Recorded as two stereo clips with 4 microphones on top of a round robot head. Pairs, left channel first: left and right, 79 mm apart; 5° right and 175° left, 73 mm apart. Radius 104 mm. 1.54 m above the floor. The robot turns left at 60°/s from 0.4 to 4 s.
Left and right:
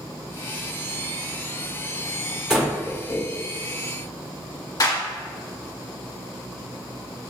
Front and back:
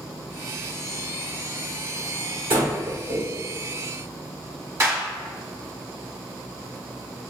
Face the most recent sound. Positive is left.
turn(degrees=125)